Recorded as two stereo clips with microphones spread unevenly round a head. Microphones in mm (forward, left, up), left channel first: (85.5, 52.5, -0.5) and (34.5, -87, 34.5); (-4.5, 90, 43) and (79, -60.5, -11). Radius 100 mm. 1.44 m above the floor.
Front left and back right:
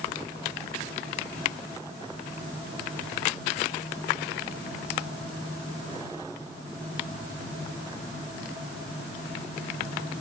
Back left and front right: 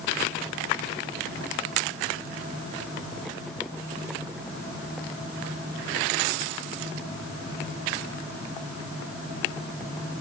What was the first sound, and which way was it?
Only background noise.